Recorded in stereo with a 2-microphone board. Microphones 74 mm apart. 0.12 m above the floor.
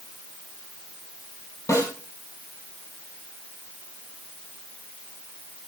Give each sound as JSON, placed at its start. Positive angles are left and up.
{"t": 1.7, "sound": "a snare drum", "side_deg": 45, "distance_m": 4.0}